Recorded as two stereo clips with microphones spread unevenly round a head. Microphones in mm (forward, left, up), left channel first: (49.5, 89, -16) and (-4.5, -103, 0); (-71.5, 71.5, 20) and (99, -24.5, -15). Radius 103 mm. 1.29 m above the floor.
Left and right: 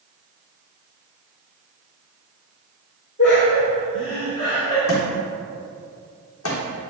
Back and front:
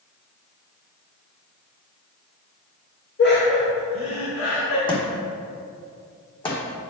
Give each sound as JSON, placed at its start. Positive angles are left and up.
{"t": 3.2, "sound": "laughter", "azimuth_deg": 115, "distance_m": 2.5}
{"t": 4.9, "sound": "a thud", "azimuth_deg": 90, "distance_m": 3.0}